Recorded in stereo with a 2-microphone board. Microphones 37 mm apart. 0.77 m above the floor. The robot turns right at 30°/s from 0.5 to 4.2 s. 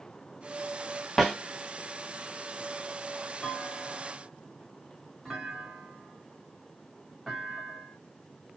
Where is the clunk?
15° left (ahead or behind), 1.8 m; by 8.0 s 5° right (ahead or behind), 1.8 m.